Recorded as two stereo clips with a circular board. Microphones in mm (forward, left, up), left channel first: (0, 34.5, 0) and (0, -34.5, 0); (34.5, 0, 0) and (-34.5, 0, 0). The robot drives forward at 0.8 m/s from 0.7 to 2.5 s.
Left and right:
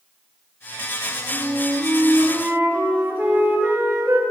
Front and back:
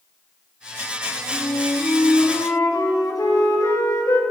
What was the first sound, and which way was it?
A flute, 25° right.